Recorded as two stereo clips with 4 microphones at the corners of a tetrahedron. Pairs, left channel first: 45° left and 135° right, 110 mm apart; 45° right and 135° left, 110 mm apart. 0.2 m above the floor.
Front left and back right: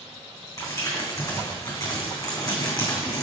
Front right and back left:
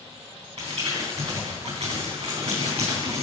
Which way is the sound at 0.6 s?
100° left.